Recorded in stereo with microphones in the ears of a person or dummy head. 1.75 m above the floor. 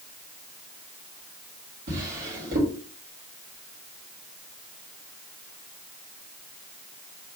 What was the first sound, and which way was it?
A drawer, 60° right (ahead or behind).